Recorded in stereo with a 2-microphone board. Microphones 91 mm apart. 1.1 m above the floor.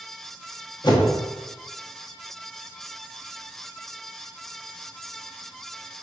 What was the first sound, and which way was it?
A whoosh, 50° left (ahead or behind).